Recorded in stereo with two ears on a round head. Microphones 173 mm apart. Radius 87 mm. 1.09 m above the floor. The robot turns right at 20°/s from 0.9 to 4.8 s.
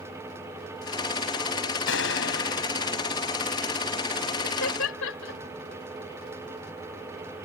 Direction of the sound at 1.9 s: 70° left (ahead or behind).